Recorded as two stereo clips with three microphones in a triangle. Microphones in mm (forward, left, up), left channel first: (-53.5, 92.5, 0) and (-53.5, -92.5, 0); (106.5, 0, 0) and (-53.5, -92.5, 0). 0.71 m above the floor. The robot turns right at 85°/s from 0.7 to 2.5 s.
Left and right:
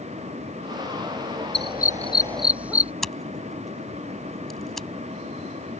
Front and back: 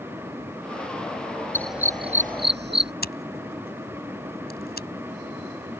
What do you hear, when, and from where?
1.5 s a dog barking: 105° left; by 2.9 s 170° right
3.0 s scissors: straight ahead